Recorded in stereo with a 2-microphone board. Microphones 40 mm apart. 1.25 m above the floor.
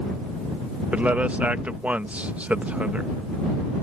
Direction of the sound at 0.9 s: 35° right (ahead or behind).